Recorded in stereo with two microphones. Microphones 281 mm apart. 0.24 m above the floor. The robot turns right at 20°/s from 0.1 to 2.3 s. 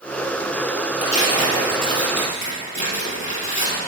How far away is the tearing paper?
About 2.5 m.